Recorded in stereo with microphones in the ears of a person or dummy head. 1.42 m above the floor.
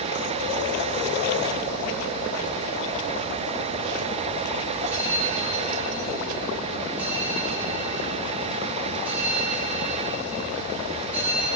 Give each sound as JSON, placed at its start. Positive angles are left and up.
{"t": 4.9, "sound": "a bell", "side_deg": -10, "distance_m": 7.0}